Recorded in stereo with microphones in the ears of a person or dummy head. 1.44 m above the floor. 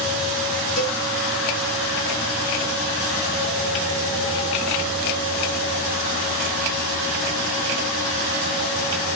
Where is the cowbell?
75° left (ahead or behind), 3 m.